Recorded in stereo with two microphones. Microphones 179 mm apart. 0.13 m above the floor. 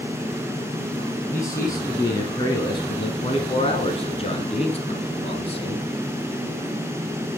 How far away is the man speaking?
About 1.8 m.